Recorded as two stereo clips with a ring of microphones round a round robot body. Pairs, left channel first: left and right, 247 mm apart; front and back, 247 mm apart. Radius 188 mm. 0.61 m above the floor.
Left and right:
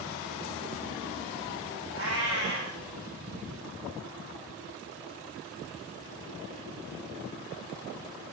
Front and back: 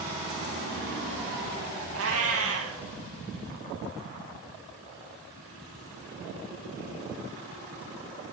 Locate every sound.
1.9 s a cat meowing: 155° left, 1.8 m